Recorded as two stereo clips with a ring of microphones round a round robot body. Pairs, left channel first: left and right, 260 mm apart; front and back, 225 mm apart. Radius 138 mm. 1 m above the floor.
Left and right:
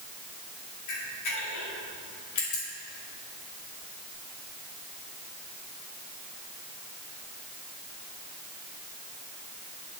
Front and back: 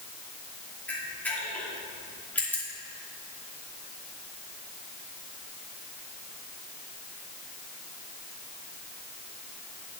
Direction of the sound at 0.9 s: 85° left.